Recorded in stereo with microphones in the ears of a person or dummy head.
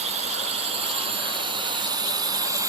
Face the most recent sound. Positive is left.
turn(degrees=-15)  # may be behind; listen again after turning